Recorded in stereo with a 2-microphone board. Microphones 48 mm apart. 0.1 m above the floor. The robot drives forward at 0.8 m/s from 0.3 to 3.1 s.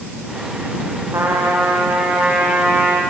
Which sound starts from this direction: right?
A trumpet, at 1.1 s.